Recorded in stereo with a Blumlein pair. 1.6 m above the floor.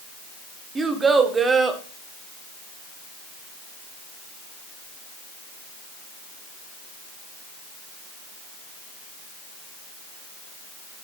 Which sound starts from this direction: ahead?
A child speaking, at 0.8 s.